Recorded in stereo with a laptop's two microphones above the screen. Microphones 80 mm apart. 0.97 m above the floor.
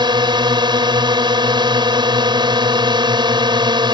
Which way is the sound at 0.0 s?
65° right (ahead or behind).